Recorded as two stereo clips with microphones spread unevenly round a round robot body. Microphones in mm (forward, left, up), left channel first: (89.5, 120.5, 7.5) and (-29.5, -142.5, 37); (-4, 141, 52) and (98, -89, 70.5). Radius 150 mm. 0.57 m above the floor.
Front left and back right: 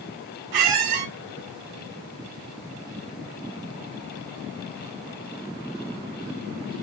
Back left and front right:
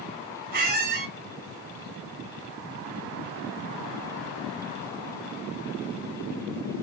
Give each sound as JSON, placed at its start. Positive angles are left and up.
{"t": 0.5, "sound": "a squeak", "azimuth_deg": -125, "distance_m": 1.0}